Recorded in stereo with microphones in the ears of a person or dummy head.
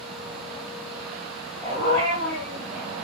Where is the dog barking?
30° right (ahead or behind), 9 m; by 3.1 s 45° right (ahead or behind), 9.5 m.